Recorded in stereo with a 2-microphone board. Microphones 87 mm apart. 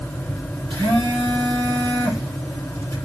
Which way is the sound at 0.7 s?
80° right.